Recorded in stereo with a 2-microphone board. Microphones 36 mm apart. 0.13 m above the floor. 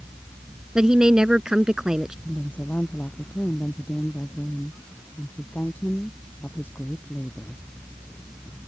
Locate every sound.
0.8 s a woman speaking: 20° right (ahead or behind)
2.2 s a woman speaking: 70° left (ahead or behind)